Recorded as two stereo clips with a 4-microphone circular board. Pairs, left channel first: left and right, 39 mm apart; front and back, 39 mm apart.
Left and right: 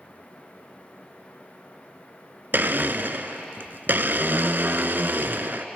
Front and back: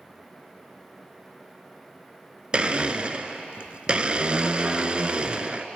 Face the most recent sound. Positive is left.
turn(degrees=-120)